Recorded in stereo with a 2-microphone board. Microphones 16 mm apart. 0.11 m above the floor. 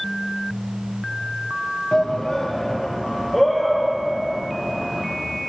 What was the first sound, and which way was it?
A shout, 50° left (ahead or behind).